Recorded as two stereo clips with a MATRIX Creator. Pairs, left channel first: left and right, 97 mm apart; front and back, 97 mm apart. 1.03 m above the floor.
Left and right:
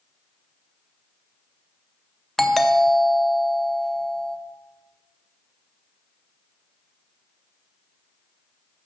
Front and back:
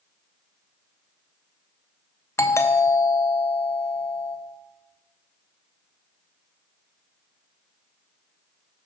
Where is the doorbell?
5° left, 0.7 m.